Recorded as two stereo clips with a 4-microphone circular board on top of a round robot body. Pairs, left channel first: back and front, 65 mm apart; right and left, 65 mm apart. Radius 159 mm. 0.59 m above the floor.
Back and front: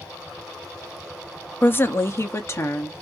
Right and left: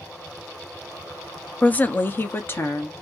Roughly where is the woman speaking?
Behind right.